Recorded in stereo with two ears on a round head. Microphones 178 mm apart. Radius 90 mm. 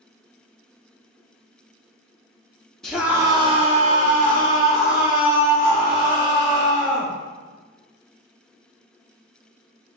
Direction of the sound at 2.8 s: 5° left (ahead or behind).